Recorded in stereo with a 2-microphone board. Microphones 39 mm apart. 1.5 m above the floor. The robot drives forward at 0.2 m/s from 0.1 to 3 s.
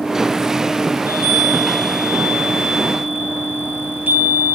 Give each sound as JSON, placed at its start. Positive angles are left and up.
{"t": 0.9, "sound": "a chime", "side_deg": -65, "distance_m": 4.0}